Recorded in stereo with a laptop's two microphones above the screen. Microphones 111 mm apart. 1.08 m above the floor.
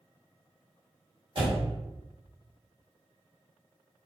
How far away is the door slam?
About 0.9 m.